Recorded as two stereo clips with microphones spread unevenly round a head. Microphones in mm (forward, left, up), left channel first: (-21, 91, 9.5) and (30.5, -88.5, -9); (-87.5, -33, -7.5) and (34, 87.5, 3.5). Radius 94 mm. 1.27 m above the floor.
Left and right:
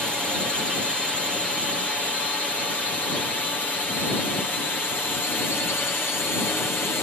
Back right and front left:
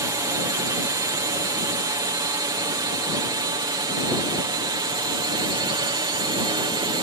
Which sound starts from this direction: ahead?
A drone, at 0.0 s.